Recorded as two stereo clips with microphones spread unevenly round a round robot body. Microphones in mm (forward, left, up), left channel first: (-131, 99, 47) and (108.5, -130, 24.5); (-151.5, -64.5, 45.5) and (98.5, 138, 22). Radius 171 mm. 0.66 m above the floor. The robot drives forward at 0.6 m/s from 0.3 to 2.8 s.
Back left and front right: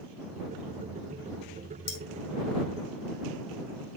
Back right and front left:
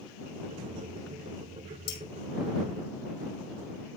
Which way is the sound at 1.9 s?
175° right.